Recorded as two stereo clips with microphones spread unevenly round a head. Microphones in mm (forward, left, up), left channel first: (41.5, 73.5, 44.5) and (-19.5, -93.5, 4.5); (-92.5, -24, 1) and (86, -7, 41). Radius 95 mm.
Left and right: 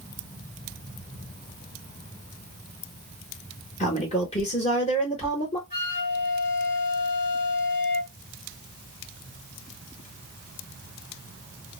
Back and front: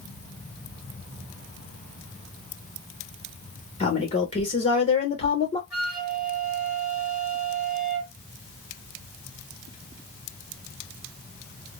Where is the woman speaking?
130° left, 0.9 m.